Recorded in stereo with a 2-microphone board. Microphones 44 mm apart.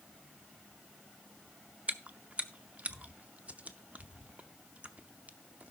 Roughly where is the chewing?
Right.